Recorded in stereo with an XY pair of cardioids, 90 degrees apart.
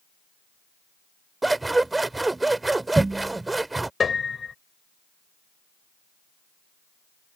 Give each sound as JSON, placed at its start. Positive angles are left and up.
{"t": 1.4, "sound": "scissors", "azimuth_deg": -20}
{"t": 4.0, "sound": "a piano", "azimuth_deg": 45}